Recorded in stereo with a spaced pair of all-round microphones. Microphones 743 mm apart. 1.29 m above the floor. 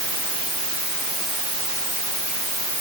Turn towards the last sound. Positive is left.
No sound to turn to.